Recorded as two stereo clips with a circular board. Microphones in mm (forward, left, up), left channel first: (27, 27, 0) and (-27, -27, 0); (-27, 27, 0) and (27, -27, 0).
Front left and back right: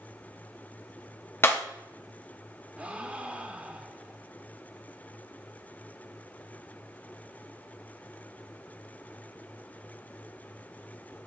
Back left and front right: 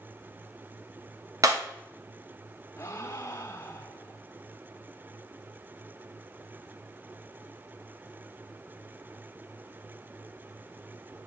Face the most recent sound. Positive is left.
turn(degrees=160)